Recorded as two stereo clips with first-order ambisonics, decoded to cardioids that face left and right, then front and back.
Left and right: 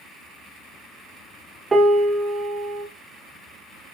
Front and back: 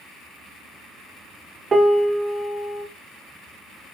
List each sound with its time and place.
1.7 s a piano: 145° right, 1.1 m